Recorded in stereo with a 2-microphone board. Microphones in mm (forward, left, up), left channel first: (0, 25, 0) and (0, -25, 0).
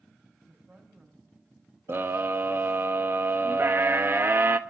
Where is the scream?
45° right (ahead or behind), 0.9 m.